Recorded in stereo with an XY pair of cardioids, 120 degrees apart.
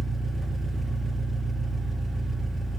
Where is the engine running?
15° right, 1.9 m.